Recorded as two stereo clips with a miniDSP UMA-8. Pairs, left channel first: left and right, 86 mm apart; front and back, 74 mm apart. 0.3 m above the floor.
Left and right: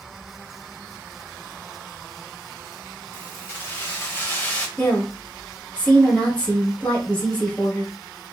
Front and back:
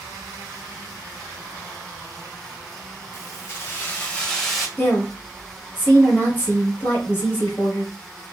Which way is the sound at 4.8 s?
25° left.